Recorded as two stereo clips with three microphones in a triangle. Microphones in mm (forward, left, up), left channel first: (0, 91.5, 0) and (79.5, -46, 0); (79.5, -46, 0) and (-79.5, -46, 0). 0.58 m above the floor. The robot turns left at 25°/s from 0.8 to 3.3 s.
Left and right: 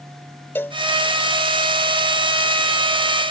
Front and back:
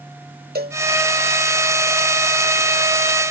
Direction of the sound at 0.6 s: 165° right.